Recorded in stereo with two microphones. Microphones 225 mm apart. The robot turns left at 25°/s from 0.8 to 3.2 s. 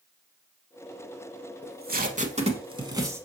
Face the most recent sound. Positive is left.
turn(degrees=-10)  # may be behind; listen again after turning